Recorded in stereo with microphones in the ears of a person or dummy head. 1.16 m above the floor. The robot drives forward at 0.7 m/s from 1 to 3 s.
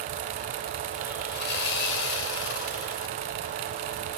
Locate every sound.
1.3 s sawing: 65° left (ahead or behind), 3 m; by 3.1 s 85° left, 2.5 m